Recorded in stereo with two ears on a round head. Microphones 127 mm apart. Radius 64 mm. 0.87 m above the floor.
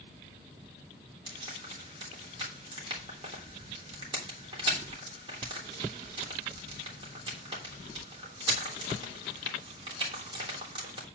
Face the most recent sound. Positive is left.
turn(degrees=-35)  # may be behind; listen again after turning